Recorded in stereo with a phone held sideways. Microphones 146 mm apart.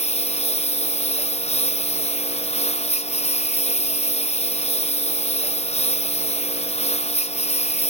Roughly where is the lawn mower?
Left.